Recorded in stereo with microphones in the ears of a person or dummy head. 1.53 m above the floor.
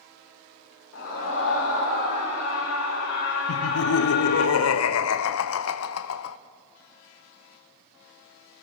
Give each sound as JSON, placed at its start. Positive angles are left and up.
{"t": 0.9, "sound": "a scream", "side_deg": 85, "distance_m": 5.0}
{"t": 3.5, "sound": "laughter", "side_deg": 85, "distance_m": 0.6}